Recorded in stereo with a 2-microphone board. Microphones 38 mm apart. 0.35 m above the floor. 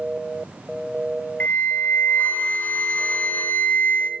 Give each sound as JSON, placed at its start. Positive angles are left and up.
{"t": 1.4, "sound": "a flute", "side_deg": 45, "distance_m": 0.6}